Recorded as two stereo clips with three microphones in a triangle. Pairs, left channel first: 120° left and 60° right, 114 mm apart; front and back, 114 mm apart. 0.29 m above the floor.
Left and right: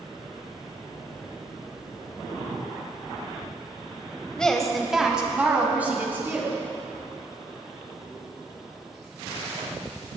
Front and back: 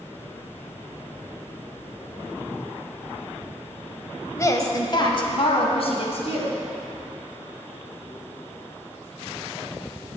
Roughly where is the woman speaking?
Ahead left.